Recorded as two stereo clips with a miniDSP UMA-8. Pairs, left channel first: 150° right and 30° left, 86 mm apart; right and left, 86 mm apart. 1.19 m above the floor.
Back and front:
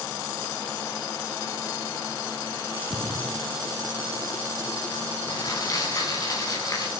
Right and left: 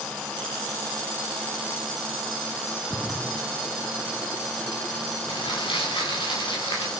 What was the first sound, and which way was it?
A splash, 25° right.